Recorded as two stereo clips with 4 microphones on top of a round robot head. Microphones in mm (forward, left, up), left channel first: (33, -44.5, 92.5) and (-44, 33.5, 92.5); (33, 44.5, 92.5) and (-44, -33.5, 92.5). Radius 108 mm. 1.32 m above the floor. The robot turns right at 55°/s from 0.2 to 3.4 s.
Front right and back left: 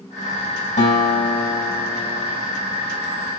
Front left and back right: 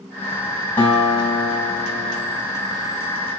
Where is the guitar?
30° right, 3 m; by 2.4 s 60° left, 3 m.